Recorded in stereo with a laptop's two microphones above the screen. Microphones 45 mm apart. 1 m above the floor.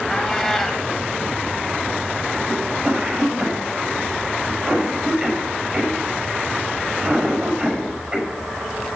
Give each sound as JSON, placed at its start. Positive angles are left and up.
{"t": 0.1, "sound": "a cat meowing", "side_deg": 0, "distance_m": 1.5}
{"t": 2.5, "sound": "a cough", "side_deg": -30, "distance_m": 5.5}